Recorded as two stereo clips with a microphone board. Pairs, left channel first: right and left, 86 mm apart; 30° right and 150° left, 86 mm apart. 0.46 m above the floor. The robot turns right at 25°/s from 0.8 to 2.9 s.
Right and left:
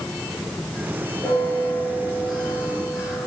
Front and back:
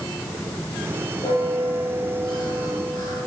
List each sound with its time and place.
1.2 s a bell: 30° right, 6 m; by 3.3 s 10° left, 6 m